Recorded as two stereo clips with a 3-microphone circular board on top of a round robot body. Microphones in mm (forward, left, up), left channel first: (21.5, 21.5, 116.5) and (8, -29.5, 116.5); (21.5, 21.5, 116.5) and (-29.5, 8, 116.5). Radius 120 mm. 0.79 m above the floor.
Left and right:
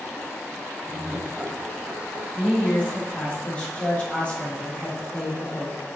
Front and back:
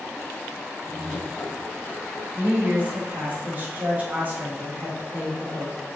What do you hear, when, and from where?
0.9 s laughter: 30° right, 0.8 m; by 2.2 s 45° right, 1.6 m
2.4 s a woman speaking: 140° left, 3 m